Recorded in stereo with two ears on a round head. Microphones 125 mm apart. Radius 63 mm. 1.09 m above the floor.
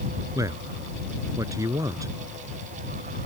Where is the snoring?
I don't hear snoring.